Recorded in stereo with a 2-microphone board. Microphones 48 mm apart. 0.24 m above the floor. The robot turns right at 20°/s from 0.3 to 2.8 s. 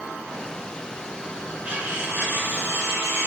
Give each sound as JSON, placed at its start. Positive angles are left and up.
{"t": 1.6, "sound": "cutlery clinking", "side_deg": -35, "distance_m": 1.6}